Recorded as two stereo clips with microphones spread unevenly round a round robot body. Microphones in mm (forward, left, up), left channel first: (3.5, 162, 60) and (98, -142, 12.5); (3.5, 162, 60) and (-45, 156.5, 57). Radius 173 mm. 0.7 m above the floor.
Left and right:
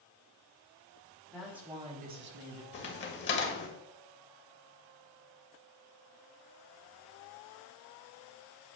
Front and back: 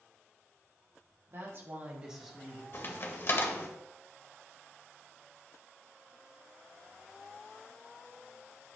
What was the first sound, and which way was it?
A woman speaking, 160° right.